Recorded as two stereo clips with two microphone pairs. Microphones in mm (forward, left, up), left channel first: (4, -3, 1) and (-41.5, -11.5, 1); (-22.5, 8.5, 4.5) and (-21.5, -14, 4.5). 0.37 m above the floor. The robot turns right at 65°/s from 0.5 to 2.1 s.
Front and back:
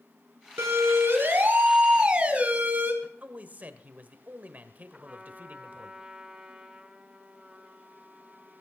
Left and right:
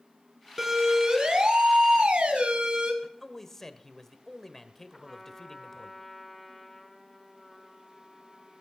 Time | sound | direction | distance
0.6 | a siren | 160° right | 2.5 m
3.0 | a man speaking | 165° left | 1.3 m
4.9 | a trumpet | straight behind | 1.5 m